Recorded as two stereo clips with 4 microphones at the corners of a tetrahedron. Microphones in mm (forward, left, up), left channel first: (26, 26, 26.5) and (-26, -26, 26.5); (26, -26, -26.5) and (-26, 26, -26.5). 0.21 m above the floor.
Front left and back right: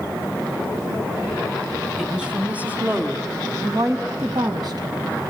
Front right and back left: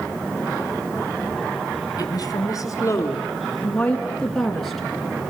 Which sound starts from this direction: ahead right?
A woman speaking, at 2.0 s.